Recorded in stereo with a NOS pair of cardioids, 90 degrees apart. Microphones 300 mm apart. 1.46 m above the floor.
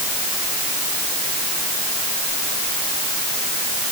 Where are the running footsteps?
No running footsteps in this recording.